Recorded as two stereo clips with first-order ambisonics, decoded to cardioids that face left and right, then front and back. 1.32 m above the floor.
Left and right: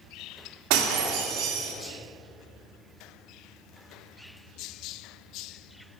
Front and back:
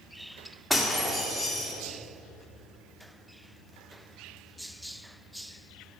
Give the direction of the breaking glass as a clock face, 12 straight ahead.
3 o'clock.